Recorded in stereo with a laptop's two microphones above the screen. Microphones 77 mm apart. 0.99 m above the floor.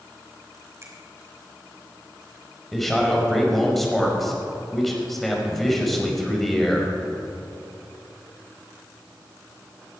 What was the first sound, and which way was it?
A finger snap, 35° right (ahead or behind).